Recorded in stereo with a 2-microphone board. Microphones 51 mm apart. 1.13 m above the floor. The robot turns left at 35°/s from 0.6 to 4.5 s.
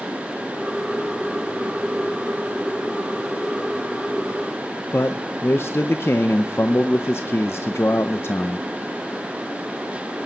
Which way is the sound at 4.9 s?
55° left (ahead or behind).